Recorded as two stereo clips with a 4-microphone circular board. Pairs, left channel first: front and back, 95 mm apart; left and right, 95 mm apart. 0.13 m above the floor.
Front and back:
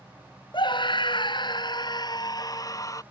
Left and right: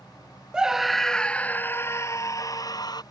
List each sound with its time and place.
0.5 s a scream: 10° right; by 3.0 s 50° left